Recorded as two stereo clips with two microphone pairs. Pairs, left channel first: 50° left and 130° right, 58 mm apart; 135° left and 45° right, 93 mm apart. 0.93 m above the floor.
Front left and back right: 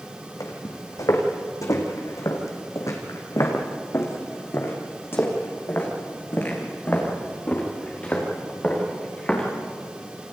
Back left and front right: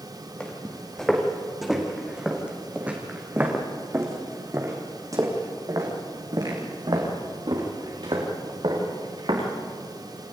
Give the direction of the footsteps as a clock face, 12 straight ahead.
10 o'clock.